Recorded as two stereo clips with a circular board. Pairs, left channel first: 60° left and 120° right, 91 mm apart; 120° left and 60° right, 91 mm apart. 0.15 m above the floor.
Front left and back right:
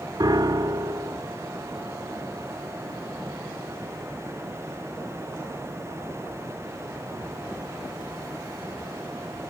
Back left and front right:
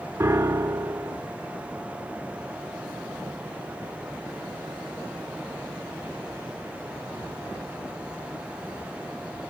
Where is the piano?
105° right, 0.5 m.